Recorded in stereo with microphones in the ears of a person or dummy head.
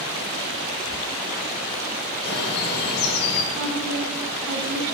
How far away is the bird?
About 1.5 m.